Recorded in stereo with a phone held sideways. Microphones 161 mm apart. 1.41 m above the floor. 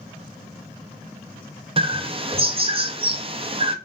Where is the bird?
35° right (ahead or behind), 0.5 m.